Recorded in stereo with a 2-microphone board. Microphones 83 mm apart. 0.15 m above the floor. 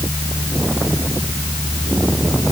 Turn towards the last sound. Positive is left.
No sound to turn to.